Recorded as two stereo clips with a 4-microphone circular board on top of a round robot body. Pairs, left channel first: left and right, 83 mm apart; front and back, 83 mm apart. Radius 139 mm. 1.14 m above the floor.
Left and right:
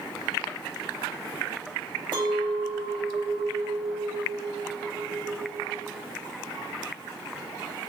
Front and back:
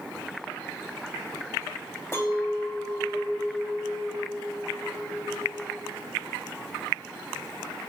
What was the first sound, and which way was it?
A clink, 60° right.